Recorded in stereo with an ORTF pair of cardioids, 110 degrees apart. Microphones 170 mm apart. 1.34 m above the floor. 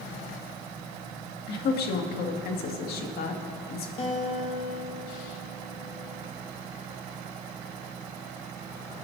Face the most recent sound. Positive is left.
turn(degrees=35)